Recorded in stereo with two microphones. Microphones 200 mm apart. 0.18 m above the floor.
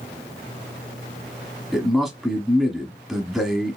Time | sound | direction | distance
1.7 | a man speaking | centre (ahead or behind) | 1.2 m